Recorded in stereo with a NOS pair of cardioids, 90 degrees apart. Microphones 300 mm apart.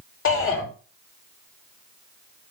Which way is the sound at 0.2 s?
45° left.